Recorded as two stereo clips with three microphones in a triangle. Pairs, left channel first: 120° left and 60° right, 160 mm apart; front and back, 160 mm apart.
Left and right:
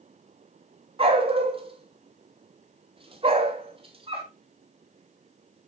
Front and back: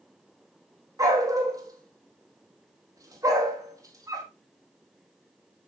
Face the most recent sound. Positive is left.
turn(degrees=-115)